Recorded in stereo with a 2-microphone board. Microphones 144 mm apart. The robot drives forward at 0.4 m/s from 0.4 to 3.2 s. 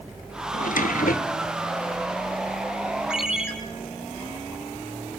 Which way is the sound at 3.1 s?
5° right (ahead or behind).